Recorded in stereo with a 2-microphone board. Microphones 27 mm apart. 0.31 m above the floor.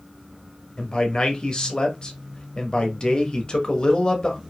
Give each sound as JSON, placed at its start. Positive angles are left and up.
{"t": 0.8, "sound": "a man speaking", "side_deg": 35, "distance_m": 1.1}